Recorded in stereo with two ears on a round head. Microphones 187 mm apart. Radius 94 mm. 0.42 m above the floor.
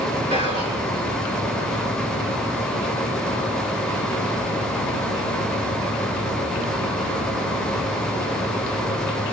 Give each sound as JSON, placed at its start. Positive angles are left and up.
{"t": 0.3, "sound": "whispering", "side_deg": -25, "distance_m": 2.0}